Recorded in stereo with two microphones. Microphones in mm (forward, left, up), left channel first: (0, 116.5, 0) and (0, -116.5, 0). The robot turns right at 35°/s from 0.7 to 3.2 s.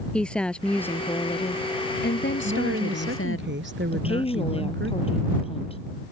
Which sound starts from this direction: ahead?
A woman speaking, at 0.1 s.